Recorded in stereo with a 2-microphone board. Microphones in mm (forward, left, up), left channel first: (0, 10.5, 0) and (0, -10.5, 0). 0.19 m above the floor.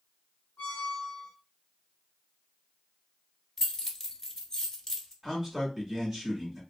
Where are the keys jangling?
15° left (ahead or behind), 0.7 m.